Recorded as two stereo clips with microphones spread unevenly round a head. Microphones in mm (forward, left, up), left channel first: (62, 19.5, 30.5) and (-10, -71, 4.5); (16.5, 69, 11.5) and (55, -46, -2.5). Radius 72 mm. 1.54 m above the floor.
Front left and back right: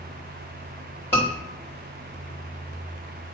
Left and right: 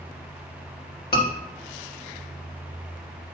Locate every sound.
1.1 s a scream: 125° left, 3.5 m